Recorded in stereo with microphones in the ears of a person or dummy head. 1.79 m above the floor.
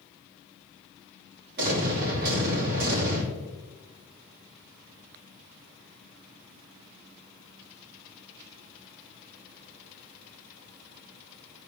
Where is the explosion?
65° right (ahead or behind), 3 m.